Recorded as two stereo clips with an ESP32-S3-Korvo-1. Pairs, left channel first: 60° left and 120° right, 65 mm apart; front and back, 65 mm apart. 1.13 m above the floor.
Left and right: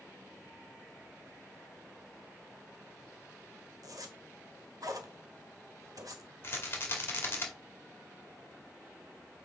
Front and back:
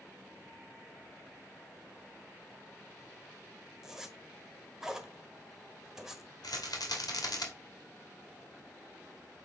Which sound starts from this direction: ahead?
A rattle, at 6.4 s.